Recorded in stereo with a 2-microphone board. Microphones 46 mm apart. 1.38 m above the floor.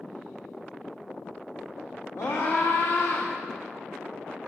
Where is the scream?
70° left (ahead or behind), 4.5 m; by 3.3 s 75° left (ahead or behind), 5.5 m.